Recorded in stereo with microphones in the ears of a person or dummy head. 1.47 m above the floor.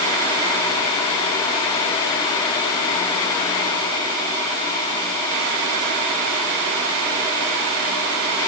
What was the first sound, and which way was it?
Only background noise.